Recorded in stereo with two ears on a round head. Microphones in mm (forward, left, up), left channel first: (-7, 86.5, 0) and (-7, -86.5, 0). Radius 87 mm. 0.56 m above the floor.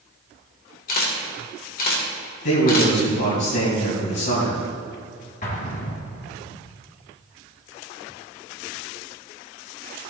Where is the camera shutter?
45° left (ahead or behind), 2 m.